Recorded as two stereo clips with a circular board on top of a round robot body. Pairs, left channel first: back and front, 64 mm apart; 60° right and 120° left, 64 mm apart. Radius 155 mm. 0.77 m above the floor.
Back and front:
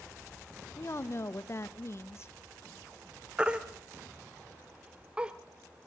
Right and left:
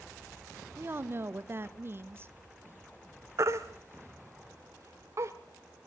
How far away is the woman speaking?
About 1.3 m.